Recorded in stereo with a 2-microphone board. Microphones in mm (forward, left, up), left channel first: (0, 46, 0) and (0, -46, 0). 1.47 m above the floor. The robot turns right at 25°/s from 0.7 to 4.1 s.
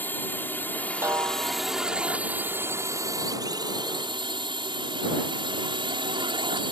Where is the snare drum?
25° right (ahead or behind); by 1.7 s 45° right (ahead or behind).